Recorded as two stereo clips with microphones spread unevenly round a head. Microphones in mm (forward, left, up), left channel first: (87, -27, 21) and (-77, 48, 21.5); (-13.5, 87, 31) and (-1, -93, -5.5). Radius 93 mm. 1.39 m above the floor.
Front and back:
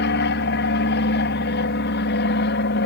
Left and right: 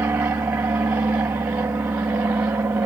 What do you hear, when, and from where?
0.0 s an aircraft: 10° right